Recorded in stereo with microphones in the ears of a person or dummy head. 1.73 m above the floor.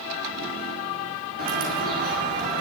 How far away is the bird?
About 6 m.